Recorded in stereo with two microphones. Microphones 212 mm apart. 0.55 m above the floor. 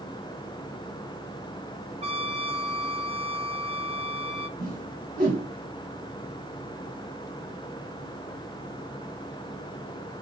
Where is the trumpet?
30° right (ahead or behind), 0.6 m.